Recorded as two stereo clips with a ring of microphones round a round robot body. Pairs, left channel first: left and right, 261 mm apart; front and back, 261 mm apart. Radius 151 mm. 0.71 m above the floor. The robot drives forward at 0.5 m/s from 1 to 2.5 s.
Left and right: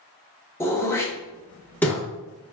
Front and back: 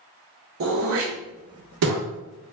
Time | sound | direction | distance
0.6 | throat clearing | 170° left | 0.8 m